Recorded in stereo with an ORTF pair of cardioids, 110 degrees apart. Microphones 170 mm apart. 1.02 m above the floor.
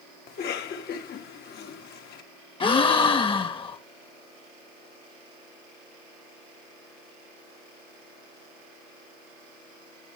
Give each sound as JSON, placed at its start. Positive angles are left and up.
{"t": 0.3, "sound": "a cough", "azimuth_deg": 65, "distance_m": 1.8}
{"t": 2.6, "sound": "a gasp", "azimuth_deg": 30, "distance_m": 1.2}